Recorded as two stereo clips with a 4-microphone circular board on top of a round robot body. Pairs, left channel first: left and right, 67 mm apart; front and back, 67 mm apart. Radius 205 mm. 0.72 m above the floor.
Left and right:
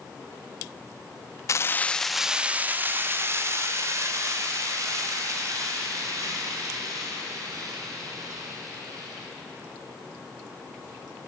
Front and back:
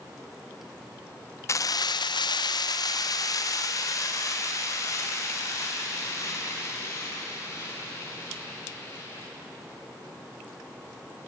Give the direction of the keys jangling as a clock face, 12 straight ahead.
10 o'clock.